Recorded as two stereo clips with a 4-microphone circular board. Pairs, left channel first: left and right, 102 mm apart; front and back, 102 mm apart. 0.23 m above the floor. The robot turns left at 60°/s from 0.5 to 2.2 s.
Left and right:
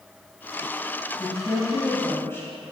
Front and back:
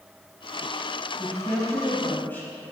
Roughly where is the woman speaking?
Left.